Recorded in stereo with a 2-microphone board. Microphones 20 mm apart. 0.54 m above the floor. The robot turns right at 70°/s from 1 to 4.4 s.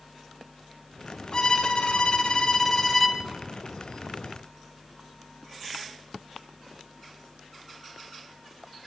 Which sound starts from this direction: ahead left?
A violin, at 1.3 s.